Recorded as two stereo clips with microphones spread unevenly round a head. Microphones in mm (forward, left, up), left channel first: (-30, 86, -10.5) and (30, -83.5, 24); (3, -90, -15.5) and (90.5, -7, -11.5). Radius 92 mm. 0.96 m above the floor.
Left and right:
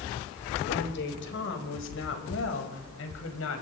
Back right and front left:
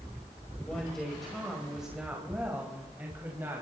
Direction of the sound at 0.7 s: 140° left.